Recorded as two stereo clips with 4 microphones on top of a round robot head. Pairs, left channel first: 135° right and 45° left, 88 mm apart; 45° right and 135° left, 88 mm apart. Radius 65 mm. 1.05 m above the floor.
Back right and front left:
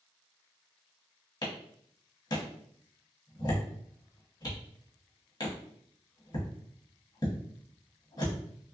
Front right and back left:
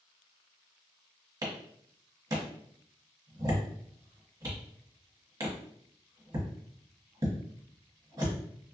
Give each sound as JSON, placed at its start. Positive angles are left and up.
{"t": 1.4, "sound": "a clap", "azimuth_deg": -175, "distance_m": 1.4}